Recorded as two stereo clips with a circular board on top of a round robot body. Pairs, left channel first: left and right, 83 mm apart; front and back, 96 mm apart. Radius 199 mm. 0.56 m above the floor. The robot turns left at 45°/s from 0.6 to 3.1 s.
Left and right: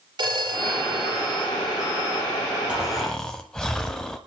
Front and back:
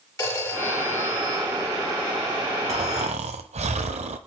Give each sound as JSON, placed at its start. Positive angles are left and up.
{"t": 0.2, "sound": "a phone ringing", "azimuth_deg": -60, "distance_m": 9.0}
{"t": 2.7, "sound": "snoring", "azimuth_deg": -170, "distance_m": 0.8}